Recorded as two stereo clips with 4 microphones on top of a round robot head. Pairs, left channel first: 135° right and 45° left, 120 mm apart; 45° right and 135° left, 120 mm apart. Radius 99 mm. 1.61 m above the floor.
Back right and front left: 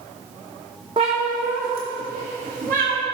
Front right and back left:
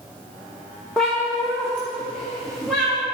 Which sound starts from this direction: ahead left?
A cat meowing, at 1.0 s.